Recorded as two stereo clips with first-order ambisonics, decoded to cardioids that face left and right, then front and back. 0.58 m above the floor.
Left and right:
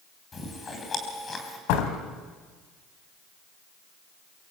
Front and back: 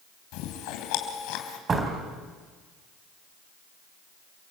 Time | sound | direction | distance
0.3 | chewing | 20° left | 3.5 m
1.7 | a door slam | 110° left | 3.5 m